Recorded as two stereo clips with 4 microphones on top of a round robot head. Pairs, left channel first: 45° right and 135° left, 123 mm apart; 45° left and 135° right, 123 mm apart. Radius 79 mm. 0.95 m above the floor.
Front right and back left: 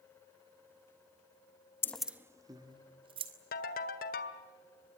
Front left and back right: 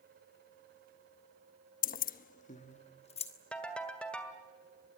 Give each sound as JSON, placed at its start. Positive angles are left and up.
{"t": 1.8, "sound": "keys jangling", "azimuth_deg": 25, "distance_m": 0.6}
{"t": 3.5, "sound": "a ringtone", "azimuth_deg": -35, "distance_m": 1.7}